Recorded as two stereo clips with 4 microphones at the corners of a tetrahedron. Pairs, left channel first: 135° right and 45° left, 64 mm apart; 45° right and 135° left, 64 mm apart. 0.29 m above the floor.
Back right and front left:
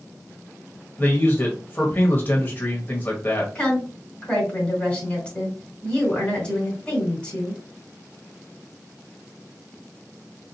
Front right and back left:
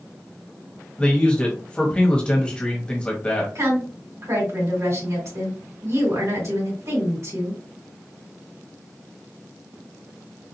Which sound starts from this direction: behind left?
A woman speaking, at 3.5 s.